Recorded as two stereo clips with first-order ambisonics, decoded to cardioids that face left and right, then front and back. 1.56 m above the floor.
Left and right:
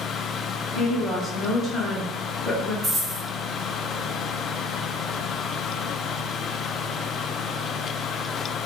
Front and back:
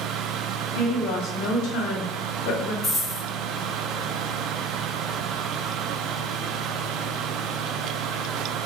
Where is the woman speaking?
15° left, 0.9 m.